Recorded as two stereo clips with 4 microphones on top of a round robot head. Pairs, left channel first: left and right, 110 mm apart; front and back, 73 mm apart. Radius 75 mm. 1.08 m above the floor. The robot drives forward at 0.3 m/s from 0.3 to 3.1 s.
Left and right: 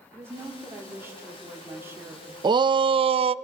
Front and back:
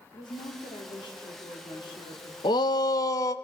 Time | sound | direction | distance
0.1 | a woman speaking | 20° right | 3.5 m
2.4 | a shout | 40° right | 0.6 m